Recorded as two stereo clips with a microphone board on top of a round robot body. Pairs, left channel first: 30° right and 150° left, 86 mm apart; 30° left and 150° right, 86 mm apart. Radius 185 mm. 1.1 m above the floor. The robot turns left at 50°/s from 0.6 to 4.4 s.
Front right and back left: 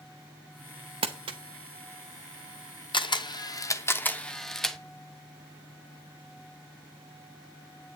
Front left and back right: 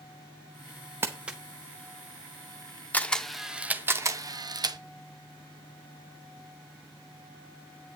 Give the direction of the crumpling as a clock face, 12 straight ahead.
7 o'clock.